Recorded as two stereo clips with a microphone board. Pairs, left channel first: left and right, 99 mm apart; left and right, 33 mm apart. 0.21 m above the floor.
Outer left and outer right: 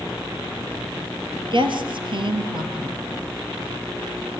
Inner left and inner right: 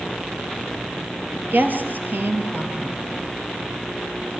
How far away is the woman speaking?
About 4 m.